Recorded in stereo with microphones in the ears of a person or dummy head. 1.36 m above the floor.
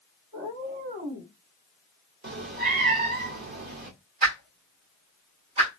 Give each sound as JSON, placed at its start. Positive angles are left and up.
{"t": 0.3, "sound": "a cat meowing", "side_deg": -40, "distance_m": 1.7}
{"t": 2.2, "sound": "a cat meowing", "side_deg": -45, "distance_m": 0.8}
{"t": 4.2, "sound": "a whoosh", "side_deg": -35, "distance_m": 1.7}